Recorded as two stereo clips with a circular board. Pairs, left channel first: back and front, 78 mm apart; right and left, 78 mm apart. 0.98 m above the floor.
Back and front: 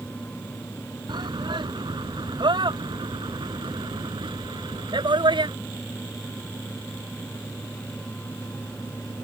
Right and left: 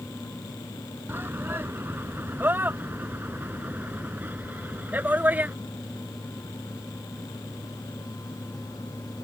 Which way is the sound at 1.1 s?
25° left.